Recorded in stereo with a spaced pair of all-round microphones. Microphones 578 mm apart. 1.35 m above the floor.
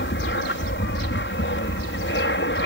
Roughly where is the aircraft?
Centre.